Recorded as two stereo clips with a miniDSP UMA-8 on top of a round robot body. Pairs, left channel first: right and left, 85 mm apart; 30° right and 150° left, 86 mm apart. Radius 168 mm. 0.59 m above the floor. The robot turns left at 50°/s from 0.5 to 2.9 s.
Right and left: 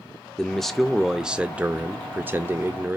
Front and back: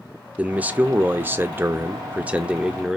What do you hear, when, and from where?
0.4 s a man speaking: 165° right, 0.7 m; by 3.0 s 75° left, 0.7 m